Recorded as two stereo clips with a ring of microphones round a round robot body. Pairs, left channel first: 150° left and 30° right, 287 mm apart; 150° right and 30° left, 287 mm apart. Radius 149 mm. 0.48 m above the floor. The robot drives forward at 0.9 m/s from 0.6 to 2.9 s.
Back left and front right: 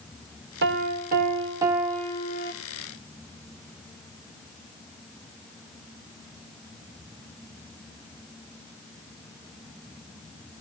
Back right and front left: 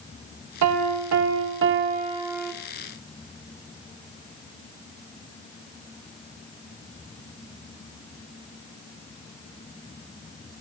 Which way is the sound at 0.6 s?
20° left.